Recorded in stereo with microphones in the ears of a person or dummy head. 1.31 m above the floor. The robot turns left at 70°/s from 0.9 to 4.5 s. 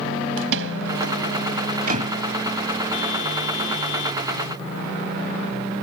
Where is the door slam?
60° right (ahead or behind); by 2.2 s 30° right (ahead or behind).